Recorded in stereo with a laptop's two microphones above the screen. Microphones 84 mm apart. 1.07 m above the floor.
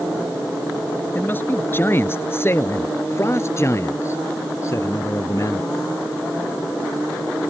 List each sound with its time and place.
1.1 s a man speaking: 25° left (ahead or behind); by 5.7 s 40° left (ahead or behind)